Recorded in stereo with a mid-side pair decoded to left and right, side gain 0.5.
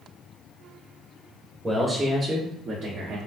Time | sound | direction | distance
1.6 | a man speaking | 15° right | 1.0 m